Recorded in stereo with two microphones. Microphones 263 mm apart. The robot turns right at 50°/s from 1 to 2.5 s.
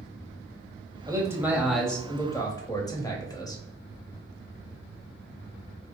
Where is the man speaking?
15° right (ahead or behind), 0.9 m; by 3.6 s 15° left (ahead or behind), 0.9 m.